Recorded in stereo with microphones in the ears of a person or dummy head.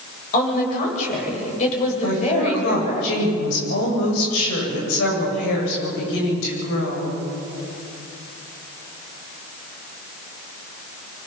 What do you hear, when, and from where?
0.3 s a woman speaking: 45° left (ahead or behind), 8.5 m; by 3.0 s 35° left (ahead or behind), 7.5 m
2.0 s a woman speaking: 80° left, 8.5 m